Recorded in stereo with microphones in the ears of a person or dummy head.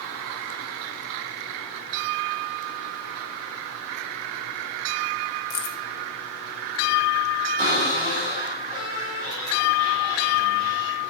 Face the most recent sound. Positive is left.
turn(degrees=-15)  # may be behind; listen again after turning